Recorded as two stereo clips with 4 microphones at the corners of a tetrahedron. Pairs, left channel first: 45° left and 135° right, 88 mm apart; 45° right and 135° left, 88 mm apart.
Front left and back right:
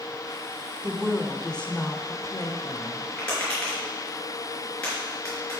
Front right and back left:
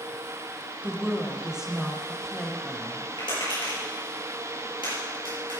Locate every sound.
0.8 s a woman speaking: 175° left, 1.1 m; by 3.1 s 35° left, 1.5 m
3.2 s tapping: 30° right, 5.5 m